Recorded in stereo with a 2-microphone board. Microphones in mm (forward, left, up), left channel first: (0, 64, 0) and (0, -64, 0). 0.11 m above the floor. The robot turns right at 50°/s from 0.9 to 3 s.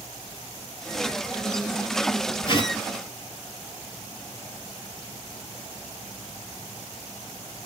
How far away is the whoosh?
About 0.6 m.